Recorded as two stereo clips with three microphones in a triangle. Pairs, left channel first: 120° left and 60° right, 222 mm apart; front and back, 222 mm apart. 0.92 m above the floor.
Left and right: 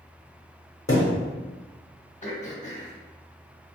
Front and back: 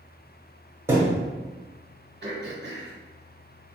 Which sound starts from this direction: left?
A thud, at 0.9 s.